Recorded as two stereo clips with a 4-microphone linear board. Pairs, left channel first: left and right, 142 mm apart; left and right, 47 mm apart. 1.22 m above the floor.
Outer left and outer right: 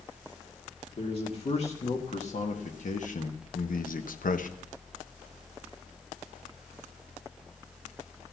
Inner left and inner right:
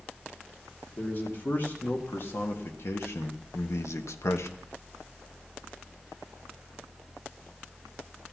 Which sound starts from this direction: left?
A man speaking, at 1.0 s.